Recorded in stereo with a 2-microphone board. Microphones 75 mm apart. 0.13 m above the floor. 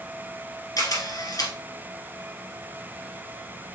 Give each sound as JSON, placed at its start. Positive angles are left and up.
{"t": 0.8, "sound": "a camera shutter", "side_deg": 55, "distance_m": 2.0}